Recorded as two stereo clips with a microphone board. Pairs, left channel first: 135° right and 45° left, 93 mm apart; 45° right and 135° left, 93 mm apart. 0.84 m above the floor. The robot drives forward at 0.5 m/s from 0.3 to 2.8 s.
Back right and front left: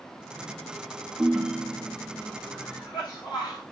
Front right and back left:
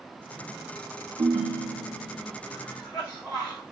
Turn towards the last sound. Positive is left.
turn(degrees=-105)